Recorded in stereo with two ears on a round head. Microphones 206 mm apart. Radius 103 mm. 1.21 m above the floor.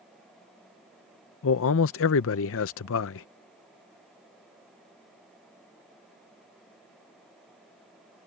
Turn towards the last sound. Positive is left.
turn(degrees=65)  # may be behind; listen again after turning